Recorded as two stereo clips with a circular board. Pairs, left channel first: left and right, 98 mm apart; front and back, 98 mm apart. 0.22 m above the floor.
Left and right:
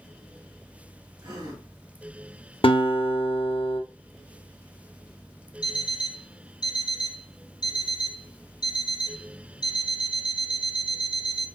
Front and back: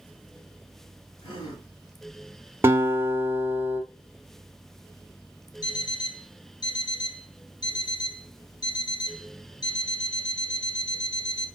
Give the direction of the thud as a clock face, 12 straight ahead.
I don't hear a thud.